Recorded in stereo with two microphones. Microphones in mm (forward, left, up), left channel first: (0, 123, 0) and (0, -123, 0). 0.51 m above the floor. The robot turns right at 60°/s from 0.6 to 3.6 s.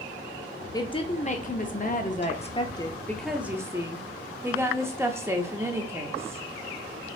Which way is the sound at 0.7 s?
30° left.